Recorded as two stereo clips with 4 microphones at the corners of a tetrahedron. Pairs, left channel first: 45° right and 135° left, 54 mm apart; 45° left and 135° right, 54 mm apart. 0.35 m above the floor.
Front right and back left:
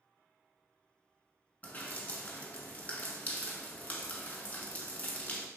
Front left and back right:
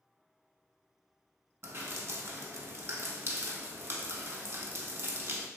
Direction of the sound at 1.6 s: 105° right.